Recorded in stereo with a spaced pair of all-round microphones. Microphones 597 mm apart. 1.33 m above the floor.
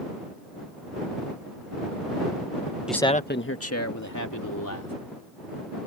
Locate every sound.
2.9 s a man speaking: centre (ahead or behind); by 4.9 s 30° left (ahead or behind)